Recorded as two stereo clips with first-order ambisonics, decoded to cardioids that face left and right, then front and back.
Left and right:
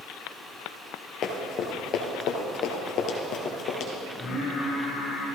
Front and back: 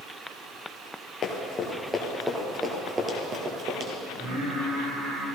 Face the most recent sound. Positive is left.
turn(degrees=155)